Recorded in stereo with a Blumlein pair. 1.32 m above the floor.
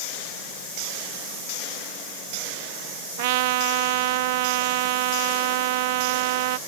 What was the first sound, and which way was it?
A trumpet, 50° right.